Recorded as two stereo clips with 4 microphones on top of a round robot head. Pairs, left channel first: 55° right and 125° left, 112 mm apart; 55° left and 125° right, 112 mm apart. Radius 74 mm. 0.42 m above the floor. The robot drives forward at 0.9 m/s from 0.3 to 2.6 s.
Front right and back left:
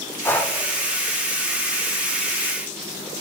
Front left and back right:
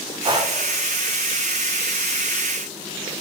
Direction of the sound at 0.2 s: 115° right.